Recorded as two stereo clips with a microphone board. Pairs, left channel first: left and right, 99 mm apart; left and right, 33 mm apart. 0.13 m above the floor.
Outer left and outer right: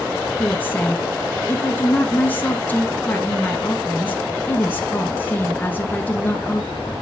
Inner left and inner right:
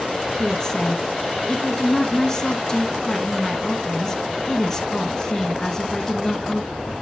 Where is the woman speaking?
20° left (ahead or behind), 1.8 m.